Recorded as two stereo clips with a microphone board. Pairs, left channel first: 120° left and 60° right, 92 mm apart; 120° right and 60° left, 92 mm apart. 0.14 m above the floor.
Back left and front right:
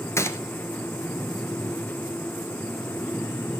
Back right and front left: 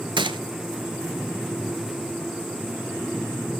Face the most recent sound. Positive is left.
turn(degrees=65)